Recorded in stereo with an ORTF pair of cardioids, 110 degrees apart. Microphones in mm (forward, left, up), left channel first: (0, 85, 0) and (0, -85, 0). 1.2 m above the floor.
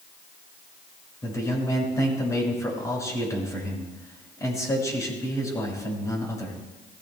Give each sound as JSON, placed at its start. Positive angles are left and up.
{"t": 1.2, "sound": "a man speaking", "azimuth_deg": 20, "distance_m": 6.0}